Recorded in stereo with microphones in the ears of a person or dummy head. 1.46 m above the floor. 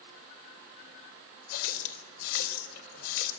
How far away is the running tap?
About 4 m.